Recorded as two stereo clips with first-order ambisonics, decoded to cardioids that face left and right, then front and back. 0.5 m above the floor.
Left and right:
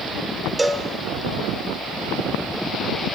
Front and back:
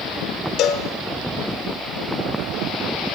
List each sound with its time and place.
0.6 s a cowbell: 10° right, 1.7 m